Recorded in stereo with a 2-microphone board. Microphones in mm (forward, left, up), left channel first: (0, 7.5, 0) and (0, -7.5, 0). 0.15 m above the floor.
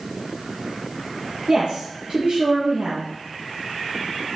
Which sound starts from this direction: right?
A woman speaking, at 1.5 s.